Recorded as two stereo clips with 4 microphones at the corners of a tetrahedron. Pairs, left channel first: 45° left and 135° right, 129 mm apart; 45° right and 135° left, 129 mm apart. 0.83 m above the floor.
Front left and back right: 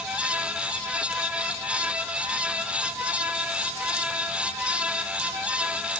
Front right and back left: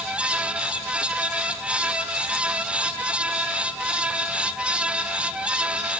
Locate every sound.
Only background noise.